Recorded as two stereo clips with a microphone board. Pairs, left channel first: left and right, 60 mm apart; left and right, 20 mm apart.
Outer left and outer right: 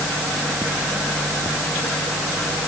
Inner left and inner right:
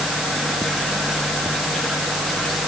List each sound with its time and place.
Only background noise.